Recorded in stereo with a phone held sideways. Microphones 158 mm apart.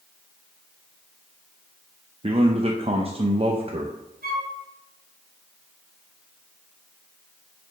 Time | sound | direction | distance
2.2 | a man speaking | 40° right (ahead or behind) | 0.7 m
4.2 | a flute | 65° right (ahead or behind) | 2.5 m